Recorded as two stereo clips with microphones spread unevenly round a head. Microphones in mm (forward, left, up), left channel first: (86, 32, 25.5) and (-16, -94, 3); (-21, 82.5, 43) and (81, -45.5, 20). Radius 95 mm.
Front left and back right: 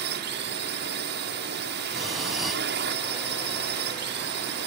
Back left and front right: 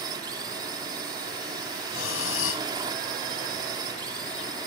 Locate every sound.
0.0 s a drone: 120° right
1.9 s breathing: 140° left